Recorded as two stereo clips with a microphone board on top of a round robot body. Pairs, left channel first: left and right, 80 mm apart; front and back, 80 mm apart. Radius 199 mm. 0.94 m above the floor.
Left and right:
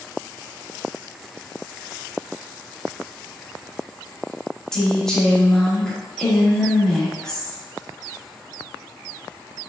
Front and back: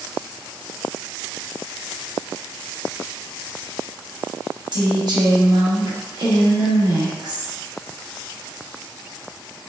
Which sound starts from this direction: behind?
A woman speaking, at 4.7 s.